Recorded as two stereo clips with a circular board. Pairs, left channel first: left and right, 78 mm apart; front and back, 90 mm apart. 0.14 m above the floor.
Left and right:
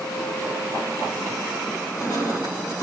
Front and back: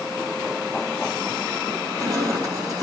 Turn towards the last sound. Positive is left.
turn(degrees=130)